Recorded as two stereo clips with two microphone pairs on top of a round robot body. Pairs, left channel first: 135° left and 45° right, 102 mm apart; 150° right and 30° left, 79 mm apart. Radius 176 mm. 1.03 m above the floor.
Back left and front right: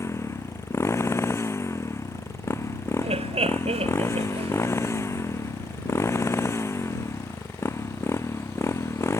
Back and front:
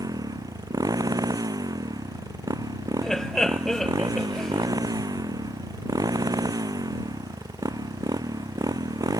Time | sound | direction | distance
0.0 | a motorcycle | 70° left | ?
3.0 | laughter | 65° right | ?